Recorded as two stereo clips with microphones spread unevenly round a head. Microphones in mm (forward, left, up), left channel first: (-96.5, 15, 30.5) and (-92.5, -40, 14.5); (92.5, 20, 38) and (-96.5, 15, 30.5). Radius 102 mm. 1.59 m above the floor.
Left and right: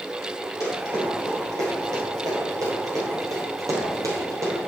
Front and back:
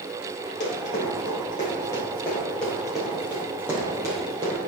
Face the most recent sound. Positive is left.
turn(degrees=-110)